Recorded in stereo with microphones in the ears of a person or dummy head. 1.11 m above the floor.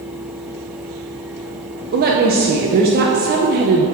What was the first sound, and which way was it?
A woman speaking, 45° right (ahead or behind).